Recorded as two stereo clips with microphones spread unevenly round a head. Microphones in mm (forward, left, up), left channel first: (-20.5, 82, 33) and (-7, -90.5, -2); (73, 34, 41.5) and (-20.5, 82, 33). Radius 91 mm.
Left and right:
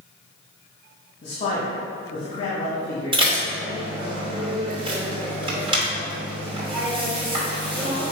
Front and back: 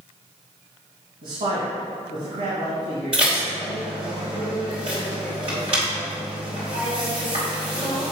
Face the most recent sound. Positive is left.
turn(degrees=-150)